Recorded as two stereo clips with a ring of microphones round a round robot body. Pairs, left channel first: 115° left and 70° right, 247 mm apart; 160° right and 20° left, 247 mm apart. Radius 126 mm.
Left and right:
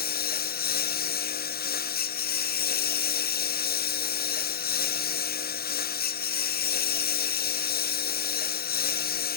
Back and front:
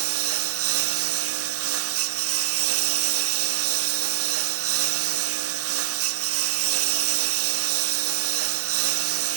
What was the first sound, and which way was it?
A lawn mower, 60° left.